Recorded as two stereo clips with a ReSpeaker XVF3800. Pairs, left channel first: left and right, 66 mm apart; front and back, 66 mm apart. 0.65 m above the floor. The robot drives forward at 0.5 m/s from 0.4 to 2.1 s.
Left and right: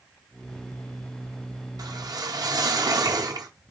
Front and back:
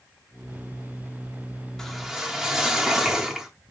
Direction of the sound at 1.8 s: 85° right.